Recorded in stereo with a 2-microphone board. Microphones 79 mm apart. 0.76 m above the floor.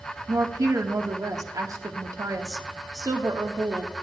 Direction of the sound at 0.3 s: 50° right (ahead or behind).